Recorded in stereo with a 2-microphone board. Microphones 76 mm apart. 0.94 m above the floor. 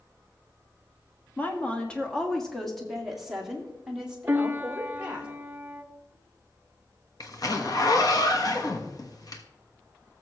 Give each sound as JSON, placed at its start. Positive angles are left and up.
{"t": 1.4, "sound": "a woman speaking", "side_deg": 20, "distance_m": 1.5}
{"t": 4.3, "sound": "a piano", "side_deg": -30, "distance_m": 0.6}
{"t": 7.2, "sound": "a zipper", "side_deg": 50, "distance_m": 1.2}